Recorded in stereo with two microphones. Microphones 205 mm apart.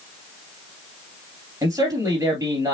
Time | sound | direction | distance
1.6 | a man speaking | 15° right (ahead or behind) | 2.5 m